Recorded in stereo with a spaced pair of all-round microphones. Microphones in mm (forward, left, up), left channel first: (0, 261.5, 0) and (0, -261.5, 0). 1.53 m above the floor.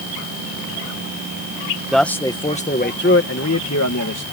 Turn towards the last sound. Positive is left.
turn(degrees=40)  # may be behind; listen again after turning